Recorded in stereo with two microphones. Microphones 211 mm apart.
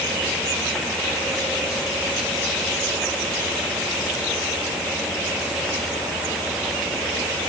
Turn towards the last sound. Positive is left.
No sound to turn to.